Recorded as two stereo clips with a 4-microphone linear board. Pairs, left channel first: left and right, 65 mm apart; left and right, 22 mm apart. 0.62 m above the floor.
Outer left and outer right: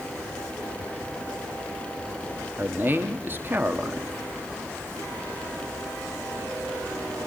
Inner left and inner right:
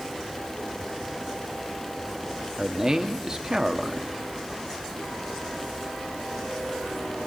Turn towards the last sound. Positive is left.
turn(degrees=-30)  # may be behind; listen again after turning